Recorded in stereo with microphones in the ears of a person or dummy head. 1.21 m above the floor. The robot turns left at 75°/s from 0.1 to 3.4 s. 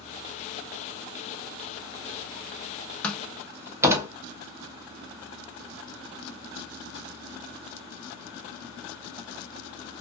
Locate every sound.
3.0 s a door slam: 5° left (ahead or behind), 0.6 m; by 4.1 s 15° right (ahead or behind), 0.6 m